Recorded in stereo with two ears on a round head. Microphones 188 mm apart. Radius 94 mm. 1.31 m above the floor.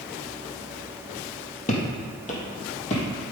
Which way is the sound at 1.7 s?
35° left (ahead or behind).